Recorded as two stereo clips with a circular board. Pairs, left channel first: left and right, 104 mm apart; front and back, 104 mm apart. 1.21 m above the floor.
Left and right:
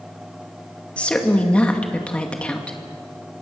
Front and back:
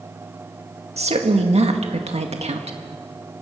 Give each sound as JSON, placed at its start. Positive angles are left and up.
{"t": 1.0, "sound": "a woman speaking", "azimuth_deg": 170, "distance_m": 1.9}